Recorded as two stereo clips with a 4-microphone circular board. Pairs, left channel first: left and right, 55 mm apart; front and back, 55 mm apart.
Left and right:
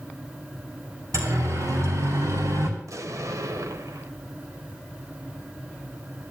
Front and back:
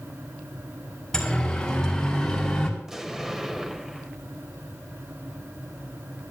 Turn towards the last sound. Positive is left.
turn(degrees=-100)